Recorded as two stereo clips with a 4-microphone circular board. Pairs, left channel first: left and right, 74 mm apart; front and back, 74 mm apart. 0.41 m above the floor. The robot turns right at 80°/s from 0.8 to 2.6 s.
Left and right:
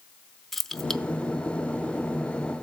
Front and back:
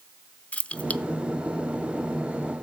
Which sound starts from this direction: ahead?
Keys jangling, at 0.5 s.